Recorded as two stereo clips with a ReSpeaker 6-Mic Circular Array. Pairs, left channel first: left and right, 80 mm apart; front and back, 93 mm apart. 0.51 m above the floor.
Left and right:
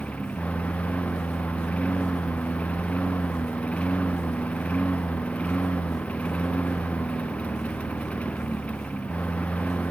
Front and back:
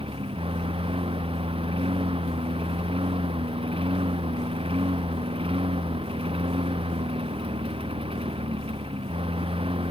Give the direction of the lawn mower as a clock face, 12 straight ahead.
7 o'clock.